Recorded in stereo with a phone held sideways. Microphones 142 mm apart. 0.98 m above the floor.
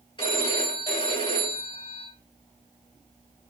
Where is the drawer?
I don't hear a drawer.